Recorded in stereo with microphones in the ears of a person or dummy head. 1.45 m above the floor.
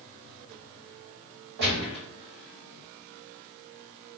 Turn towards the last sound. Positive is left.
turn(degrees=-60)  # may be behind; listen again after turning